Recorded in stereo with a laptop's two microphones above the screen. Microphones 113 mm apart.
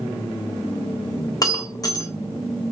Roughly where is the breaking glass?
Left.